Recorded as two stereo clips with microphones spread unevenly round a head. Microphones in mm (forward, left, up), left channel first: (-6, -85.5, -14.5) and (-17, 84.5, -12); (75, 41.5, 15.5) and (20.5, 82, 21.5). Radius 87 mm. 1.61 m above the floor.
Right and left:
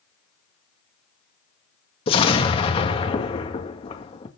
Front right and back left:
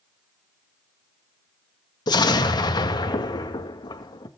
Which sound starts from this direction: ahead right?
An explosion, at 2.1 s.